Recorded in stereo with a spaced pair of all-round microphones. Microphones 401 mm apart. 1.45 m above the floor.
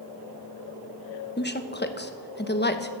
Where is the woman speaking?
25° left (ahead or behind), 1.1 m.